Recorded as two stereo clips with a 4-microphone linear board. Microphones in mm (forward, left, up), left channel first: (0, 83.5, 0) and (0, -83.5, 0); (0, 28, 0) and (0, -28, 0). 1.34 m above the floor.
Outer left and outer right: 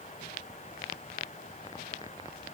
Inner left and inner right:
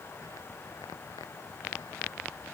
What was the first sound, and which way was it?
Only background noise.